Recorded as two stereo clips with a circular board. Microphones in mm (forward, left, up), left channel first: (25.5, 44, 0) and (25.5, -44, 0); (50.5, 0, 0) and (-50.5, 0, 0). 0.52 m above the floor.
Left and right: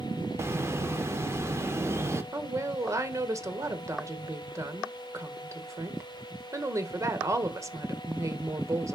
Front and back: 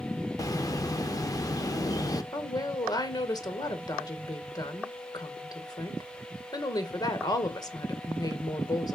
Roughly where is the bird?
Ahead right.